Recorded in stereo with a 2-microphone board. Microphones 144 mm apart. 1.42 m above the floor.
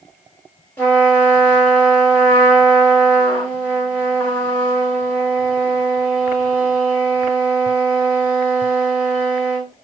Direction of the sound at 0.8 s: 15° left (ahead or behind).